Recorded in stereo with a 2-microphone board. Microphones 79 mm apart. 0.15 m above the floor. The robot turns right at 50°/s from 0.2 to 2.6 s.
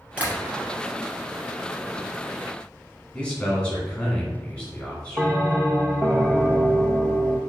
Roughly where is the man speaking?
Centre.